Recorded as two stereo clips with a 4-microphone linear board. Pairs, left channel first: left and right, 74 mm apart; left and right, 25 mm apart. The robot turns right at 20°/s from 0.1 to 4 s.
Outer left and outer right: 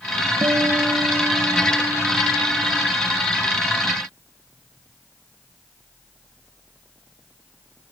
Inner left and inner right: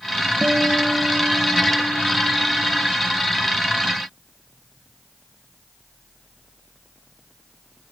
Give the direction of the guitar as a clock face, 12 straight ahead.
2 o'clock.